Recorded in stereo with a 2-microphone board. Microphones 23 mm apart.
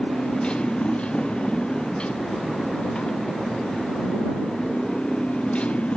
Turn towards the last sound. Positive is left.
turn(degrees=65)  # may be behind; listen again after turning